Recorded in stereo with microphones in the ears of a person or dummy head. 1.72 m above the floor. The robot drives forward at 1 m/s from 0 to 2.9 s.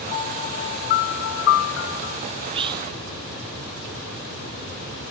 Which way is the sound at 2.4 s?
35° right (ahead or behind).